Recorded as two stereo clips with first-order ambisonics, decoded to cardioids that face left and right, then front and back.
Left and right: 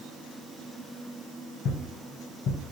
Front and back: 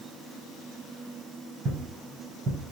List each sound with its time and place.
1.6 s footsteps: 125° left, 1.5 m